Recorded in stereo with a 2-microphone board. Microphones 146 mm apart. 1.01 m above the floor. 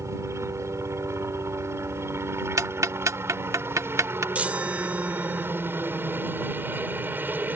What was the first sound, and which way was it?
A helicopter, 20° right (ahead or behind).